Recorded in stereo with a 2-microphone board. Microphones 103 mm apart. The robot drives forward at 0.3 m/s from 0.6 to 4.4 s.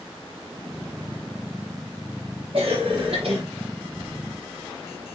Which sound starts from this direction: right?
A cough, at 2.5 s.